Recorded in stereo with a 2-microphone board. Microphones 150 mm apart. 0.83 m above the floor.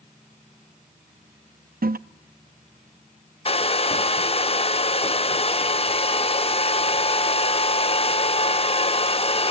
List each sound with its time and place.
1.8 s a toilet flushing: 80° right, 0.5 m
3.5 s a hair dryer: 40° left (ahead or behind), 0.5 m